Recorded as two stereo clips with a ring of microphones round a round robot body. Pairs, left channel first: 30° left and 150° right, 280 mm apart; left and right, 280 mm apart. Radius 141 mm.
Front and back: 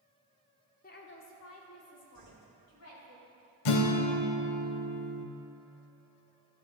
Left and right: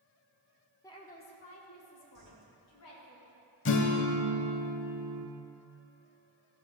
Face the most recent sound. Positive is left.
turn(degrees=40)